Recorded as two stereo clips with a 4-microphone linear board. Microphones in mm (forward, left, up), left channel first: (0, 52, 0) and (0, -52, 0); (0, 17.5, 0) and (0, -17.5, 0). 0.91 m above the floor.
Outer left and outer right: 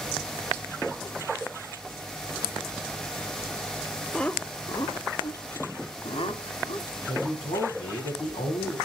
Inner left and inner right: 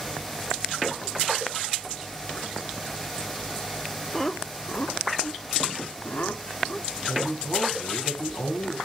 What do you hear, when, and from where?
4.1 s laughter: 5° left (ahead or behind), 0.8 m; by 6.9 s 65° left (ahead or behind), 3 m
7.1 s a man speaking: 85° left, 6.5 m